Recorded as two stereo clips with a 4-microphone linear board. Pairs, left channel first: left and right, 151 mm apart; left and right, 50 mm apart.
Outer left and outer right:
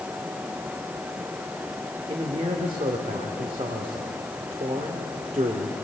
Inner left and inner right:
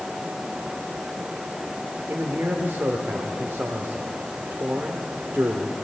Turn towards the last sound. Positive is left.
turn(degrees=-40)  # may be behind; listen again after turning